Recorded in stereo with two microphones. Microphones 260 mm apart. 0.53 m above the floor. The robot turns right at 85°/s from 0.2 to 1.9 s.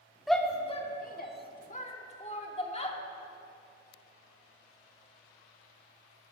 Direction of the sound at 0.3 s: Centre (ahead or behind).